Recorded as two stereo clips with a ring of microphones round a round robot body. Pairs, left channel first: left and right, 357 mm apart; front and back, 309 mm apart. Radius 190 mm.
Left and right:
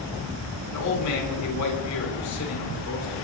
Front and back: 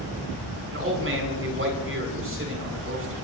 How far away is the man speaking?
About 7 m.